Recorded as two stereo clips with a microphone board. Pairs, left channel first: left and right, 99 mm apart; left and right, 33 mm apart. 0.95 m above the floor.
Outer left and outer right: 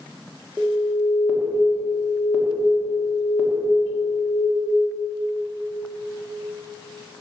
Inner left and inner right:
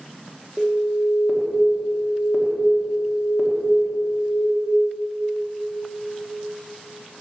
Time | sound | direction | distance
0.6 | an alarm | 10° right (ahead or behind) | 1.2 m